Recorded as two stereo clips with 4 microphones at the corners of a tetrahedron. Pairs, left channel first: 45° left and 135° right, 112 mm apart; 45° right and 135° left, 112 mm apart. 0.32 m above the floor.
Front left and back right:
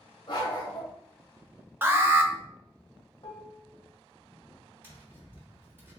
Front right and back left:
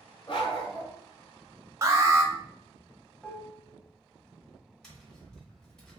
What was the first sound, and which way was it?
A dog barking, straight ahead.